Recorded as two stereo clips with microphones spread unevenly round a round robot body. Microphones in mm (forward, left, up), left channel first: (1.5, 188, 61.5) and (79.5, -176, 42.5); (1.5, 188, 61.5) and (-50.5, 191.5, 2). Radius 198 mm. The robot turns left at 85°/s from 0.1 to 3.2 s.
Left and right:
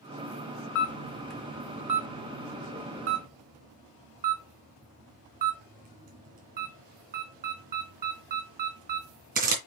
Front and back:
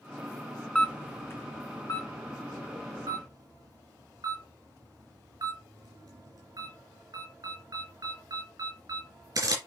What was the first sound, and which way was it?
A camera shutter, 60° left.